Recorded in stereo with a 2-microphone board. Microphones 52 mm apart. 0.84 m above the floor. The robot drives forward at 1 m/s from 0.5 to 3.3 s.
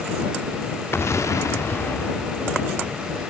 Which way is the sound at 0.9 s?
50° left (ahead or behind).